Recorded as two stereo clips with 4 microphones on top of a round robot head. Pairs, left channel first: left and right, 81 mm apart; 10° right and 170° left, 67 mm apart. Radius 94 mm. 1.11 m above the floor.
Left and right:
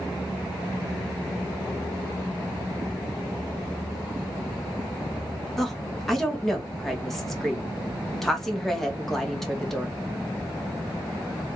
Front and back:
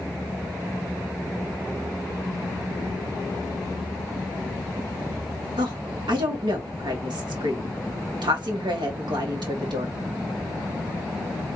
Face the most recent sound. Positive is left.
turn(degrees=175)